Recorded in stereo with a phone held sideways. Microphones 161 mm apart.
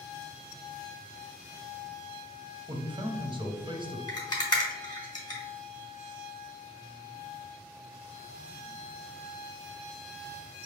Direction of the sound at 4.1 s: 25° left (ahead or behind).